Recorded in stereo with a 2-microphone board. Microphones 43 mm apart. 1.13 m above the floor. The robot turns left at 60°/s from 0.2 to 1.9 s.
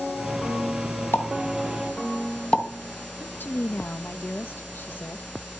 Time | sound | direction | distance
1.1 | a pop | 75° left (ahead or behind) | 3.5 m
3.2 | a woman speaking | 55° left (ahead or behind) | 1.0 m